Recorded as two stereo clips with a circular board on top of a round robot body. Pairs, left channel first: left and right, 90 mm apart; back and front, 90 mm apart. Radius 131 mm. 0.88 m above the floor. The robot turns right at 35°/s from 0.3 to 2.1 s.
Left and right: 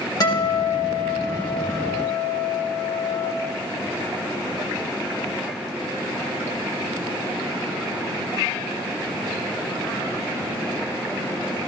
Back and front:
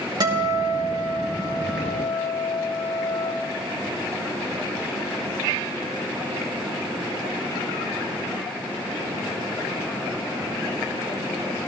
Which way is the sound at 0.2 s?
40° left.